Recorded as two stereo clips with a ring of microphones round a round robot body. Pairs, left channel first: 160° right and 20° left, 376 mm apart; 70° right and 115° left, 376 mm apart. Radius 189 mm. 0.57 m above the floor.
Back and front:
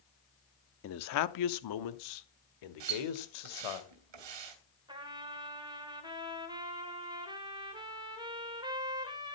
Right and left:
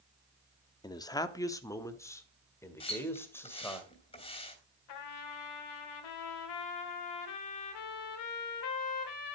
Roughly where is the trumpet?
Ahead right.